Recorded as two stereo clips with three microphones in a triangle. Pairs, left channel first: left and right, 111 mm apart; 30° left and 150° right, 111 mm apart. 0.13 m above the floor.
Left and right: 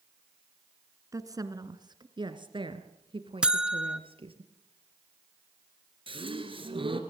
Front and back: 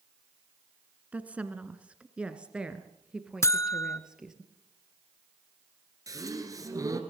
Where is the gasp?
100° right, 2 m.